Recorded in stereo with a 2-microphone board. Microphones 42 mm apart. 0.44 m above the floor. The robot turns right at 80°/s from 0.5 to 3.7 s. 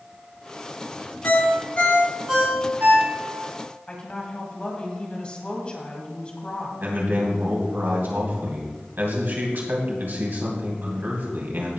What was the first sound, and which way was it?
A ringtone, 70° left (ahead or behind).